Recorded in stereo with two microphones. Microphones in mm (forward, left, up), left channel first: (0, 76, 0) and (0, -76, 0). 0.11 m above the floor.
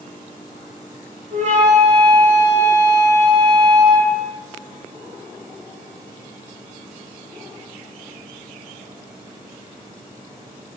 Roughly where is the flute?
Right.